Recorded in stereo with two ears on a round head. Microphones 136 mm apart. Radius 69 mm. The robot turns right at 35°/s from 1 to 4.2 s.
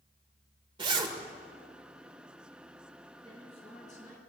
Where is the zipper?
30° right (ahead or behind), 1.6 m; by 1.1 s 25° right (ahead or behind), 1.6 m.